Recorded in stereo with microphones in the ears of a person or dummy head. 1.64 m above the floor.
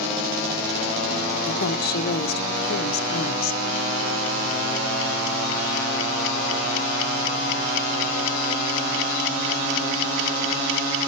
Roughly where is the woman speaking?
Left.